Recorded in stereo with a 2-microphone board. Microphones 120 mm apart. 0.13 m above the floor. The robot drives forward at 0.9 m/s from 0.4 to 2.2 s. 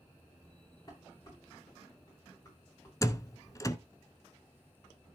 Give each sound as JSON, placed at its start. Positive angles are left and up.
{"t": 0.9, "sound": "dishes clattering", "side_deg": 30, "distance_m": 9.0}
{"t": 3.0, "sound": "a door slam", "side_deg": 30, "distance_m": 0.9}